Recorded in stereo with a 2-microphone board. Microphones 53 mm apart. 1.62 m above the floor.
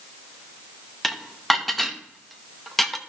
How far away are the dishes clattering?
About 0.8 m.